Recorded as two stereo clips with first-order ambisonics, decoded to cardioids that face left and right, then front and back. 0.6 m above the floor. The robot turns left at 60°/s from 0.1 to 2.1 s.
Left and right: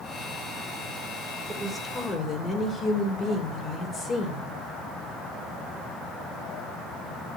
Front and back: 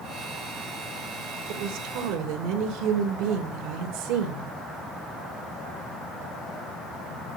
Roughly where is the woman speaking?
Behind.